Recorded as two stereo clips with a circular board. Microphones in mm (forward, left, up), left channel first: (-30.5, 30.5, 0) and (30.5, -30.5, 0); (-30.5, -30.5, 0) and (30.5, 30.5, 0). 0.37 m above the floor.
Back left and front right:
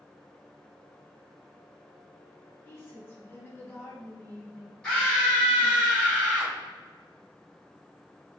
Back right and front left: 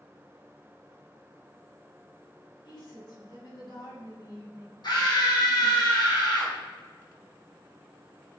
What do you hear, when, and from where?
2.6 s a woman speaking: 165° right, 3 m
4.8 s a scream: 155° right, 2.5 m